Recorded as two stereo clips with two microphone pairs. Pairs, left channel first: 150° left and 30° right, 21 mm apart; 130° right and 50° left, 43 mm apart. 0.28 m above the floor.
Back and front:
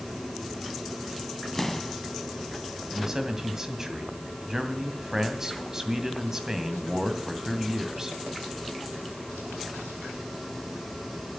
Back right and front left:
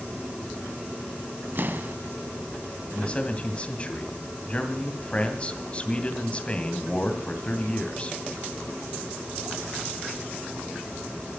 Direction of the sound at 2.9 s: 75° right.